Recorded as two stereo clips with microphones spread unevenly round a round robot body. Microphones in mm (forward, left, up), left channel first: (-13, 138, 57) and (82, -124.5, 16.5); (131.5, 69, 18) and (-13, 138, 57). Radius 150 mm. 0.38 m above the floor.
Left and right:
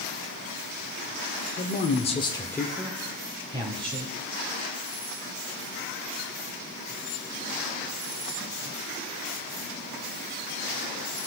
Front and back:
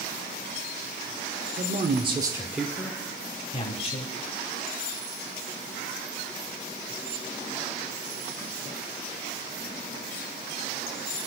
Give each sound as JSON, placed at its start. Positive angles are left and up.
{"t": 1.6, "sound": "a man speaking", "azimuth_deg": 160, "distance_m": 0.9}